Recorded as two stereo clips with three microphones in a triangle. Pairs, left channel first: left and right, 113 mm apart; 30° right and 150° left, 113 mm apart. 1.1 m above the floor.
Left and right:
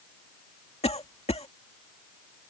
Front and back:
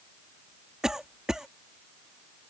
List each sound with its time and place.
0.8 s a cough: 65° left